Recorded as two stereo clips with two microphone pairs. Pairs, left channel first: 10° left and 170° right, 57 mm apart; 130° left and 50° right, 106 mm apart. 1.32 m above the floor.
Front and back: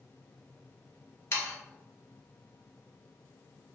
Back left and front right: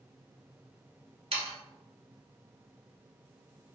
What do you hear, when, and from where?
1.3 s sawing: 30° right, 0.6 m